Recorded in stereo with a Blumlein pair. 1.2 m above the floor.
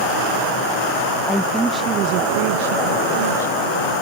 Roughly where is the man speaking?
Ahead.